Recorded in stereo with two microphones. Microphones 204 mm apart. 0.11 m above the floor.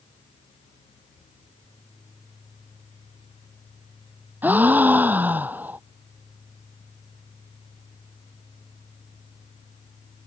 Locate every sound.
4.4 s a gasp: 10° right (ahead or behind)